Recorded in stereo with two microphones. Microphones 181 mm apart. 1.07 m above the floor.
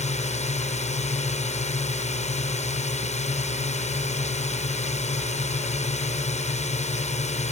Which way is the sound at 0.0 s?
40° left (ahead or behind).